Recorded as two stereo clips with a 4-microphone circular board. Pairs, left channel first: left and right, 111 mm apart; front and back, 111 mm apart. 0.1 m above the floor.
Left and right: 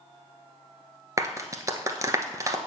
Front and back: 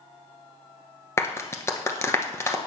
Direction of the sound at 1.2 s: 50° right.